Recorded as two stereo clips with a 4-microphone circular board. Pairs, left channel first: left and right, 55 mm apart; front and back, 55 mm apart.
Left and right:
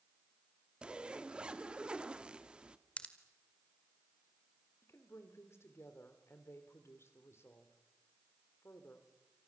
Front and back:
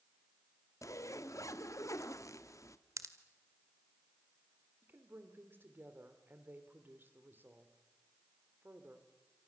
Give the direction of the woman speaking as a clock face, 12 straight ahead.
8 o'clock.